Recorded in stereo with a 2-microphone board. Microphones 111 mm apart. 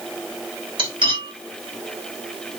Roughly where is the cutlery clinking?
Right.